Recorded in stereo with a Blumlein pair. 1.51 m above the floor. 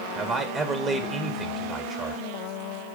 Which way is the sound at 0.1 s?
20° right.